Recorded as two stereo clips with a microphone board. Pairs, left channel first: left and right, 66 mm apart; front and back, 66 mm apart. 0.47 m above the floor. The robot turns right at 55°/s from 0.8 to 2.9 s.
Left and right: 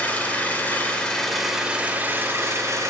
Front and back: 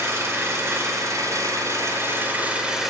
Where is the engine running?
150° left, 1.7 m; by 2.9 s 95° right, 1.7 m.